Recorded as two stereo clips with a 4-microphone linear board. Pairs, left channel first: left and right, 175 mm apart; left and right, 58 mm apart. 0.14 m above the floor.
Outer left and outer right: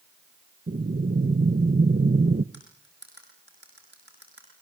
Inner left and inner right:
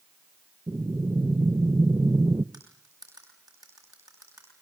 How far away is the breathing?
About 0.8 m.